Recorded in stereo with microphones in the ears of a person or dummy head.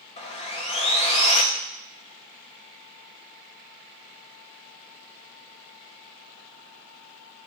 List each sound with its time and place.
0.2 s sawing: 25° left (ahead or behind), 0.6 m